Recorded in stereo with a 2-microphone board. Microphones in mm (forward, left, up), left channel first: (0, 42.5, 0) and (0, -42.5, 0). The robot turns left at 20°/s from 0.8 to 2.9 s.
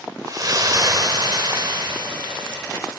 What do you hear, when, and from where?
0.3 s a splash: 50° right, 0.9 m; by 2.6 s 90° right, 0.9 m